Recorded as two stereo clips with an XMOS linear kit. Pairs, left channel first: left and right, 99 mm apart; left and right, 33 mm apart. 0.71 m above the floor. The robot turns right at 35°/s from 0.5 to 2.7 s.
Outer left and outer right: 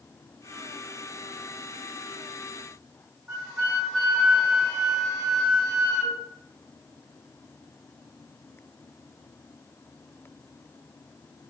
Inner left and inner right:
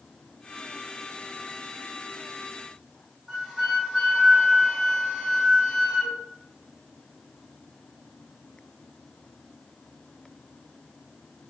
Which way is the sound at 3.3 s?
5° right (ahead or behind).